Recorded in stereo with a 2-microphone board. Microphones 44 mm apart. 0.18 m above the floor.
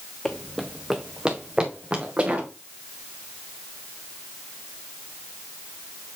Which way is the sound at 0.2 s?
15° left (ahead or behind).